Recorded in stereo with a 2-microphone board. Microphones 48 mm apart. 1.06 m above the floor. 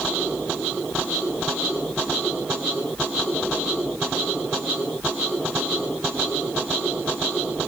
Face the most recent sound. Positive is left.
No sound to turn to.